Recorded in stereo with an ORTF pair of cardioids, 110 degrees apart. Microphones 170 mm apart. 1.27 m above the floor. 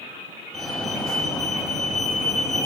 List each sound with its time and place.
0.5 s a fire alarm: 5° left, 6 m